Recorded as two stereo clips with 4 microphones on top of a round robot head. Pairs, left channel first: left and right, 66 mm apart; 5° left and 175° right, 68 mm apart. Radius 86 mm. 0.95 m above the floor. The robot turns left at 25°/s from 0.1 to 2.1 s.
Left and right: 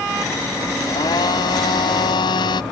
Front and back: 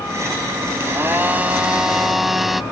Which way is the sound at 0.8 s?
130° left.